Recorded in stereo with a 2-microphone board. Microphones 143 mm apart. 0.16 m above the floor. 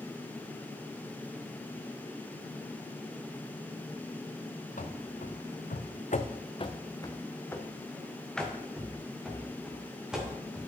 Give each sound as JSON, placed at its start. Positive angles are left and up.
{"t": 4.8, "sound": "running footsteps", "side_deg": 65, "distance_m": 1.0}